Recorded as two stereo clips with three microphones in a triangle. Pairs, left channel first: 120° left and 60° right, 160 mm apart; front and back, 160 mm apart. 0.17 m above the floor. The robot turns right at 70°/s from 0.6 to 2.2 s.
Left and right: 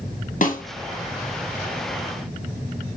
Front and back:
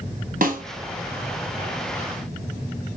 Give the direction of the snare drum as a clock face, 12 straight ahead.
7 o'clock.